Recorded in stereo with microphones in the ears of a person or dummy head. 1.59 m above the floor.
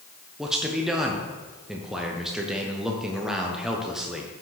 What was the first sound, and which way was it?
A man speaking, centre (ahead or behind).